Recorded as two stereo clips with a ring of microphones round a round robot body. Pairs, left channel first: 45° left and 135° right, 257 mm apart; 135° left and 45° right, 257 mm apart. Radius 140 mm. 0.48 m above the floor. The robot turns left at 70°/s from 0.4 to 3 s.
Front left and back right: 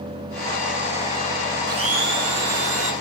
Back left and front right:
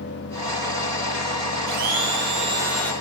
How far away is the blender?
About 4 m.